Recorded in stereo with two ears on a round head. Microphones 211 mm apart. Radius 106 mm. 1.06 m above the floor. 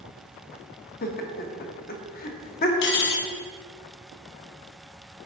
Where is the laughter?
40° left (ahead or behind), 1.0 m.